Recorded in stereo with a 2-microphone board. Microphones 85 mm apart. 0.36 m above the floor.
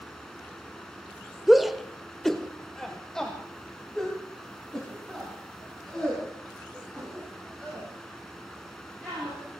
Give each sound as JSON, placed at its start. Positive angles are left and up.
{"t": 1.5, "sound": "a shout", "side_deg": -5, "distance_m": 1.1}